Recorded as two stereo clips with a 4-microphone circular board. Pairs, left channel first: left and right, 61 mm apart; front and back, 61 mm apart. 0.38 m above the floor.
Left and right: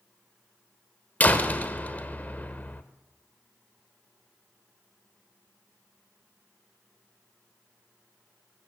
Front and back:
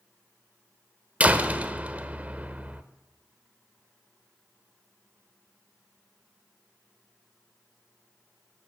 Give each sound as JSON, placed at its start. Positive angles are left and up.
{"t": 1.2, "sound": "a door slam", "azimuth_deg": 130, "distance_m": 1.0}